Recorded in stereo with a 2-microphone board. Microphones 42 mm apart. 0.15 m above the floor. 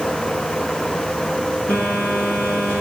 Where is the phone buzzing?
30° left (ahead or behind), 4.5 m.